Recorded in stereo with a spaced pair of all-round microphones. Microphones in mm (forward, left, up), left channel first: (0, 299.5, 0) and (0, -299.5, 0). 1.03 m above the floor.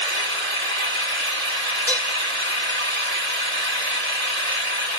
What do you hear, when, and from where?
0.0 s an engine running: 90° right, 2 m
1.9 s dishes clattering: centre (ahead or behind), 2 m